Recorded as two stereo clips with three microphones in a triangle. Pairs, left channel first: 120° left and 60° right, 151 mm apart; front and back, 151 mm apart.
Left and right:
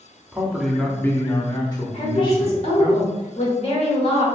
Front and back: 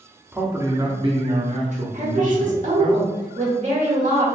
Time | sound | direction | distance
0.3 | a man speaking | 125° right | 0.7 m
1.9 | a woman speaking | 160° left | 1.5 m